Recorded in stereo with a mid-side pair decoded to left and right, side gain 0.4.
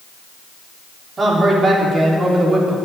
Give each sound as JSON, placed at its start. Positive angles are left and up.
{"t": 1.2, "sound": "a man speaking", "azimuth_deg": -40, "distance_m": 4.0}